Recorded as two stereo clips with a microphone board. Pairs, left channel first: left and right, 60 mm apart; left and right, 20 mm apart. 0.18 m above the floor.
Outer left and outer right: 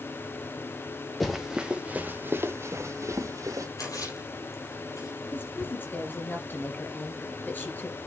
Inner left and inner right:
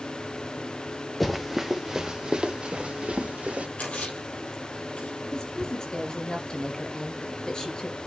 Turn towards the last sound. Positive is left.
turn(degrees=30)  # may be behind; listen again after turning